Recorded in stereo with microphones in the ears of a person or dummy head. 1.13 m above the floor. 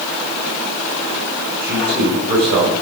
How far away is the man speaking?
About 9 m.